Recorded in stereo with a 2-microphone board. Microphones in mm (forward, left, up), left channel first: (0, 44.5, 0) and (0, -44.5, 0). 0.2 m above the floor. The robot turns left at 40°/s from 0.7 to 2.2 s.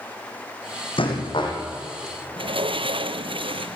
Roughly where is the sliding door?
Right.